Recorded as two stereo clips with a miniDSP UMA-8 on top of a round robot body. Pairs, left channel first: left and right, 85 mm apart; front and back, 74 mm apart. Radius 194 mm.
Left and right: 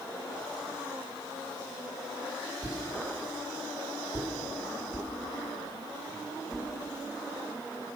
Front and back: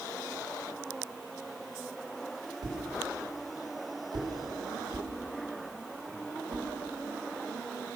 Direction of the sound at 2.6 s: 165° left.